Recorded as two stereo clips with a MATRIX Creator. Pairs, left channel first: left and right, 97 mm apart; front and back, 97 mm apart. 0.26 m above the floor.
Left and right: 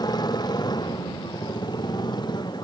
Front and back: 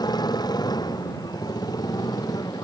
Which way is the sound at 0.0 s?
45° left.